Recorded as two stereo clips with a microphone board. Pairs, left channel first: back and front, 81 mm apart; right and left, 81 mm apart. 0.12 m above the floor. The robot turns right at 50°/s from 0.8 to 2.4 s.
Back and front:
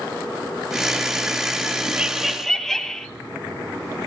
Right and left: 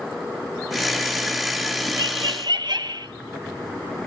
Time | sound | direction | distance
2.0 | laughter | 75° left | 2.5 m